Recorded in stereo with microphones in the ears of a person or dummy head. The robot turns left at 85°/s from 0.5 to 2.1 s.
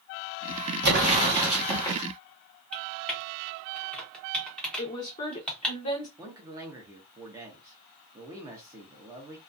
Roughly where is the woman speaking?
Left.